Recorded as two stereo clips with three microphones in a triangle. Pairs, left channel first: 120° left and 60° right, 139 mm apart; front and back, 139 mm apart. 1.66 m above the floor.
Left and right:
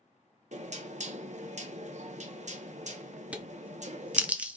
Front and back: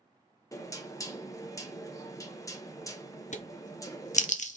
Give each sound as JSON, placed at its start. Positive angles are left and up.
{"t": 0.5, "sound": "knocking", "azimuth_deg": -60, "distance_m": 0.8}
{"t": 3.3, "sound": "a crack", "azimuth_deg": 20, "distance_m": 0.6}